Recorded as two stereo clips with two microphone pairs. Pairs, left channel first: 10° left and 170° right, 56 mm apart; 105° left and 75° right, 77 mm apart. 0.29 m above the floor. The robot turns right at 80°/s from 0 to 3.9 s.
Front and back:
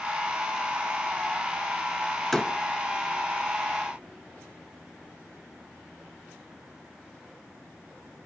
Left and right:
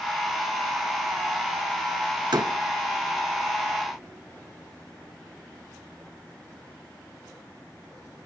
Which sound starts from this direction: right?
A door slam, at 2.3 s.